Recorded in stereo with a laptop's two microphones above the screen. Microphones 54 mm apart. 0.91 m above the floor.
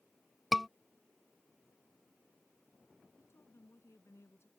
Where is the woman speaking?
65° left (ahead or behind).